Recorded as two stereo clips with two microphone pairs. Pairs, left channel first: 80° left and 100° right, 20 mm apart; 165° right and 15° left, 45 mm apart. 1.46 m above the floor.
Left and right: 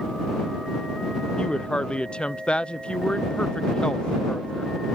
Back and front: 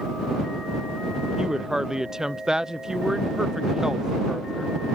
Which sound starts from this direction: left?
A woman speaking, at 1.4 s.